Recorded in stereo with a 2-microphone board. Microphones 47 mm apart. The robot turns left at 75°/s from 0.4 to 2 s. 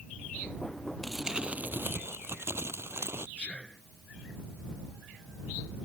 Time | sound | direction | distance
1.0 | crumpling | 5° left | ?
3.4 | whispering | 25° left (ahead or behind) | ?